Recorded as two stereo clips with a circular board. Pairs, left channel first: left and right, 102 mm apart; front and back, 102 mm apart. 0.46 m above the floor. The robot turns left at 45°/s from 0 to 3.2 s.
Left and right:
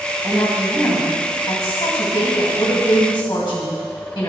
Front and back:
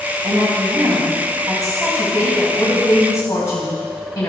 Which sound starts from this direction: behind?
A woman speaking, at 0.2 s.